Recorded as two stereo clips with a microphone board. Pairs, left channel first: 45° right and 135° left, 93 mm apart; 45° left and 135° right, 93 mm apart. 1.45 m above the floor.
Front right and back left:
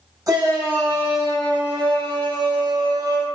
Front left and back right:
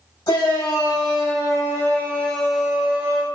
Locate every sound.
0.3 s a shout: 85° left, 1.7 m; by 3.2 s 175° left, 0.7 m